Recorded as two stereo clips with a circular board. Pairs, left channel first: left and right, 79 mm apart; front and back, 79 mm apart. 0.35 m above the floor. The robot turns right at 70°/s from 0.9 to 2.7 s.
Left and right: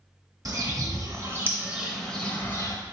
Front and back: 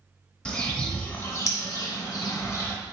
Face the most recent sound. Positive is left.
turn(degrees=50)